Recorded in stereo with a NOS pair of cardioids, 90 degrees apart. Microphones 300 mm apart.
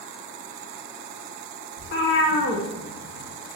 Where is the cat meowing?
45° left, 1.1 m.